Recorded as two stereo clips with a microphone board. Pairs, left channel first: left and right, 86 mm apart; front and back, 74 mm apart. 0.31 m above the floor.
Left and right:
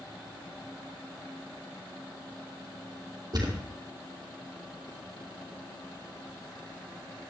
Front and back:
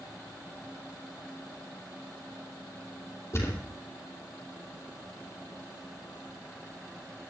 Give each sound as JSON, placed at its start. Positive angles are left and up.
{"t": 3.3, "sound": "a thud", "azimuth_deg": -50, "distance_m": 2.5}